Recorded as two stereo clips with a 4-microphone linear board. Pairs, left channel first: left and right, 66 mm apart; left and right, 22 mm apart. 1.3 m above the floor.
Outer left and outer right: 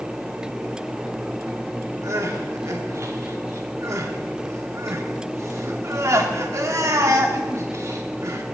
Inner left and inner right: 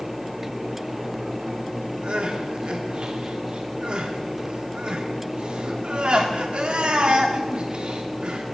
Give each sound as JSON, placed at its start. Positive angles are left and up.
{"t": 2.0, "sound": "crying", "side_deg": -50, "distance_m": 1.1}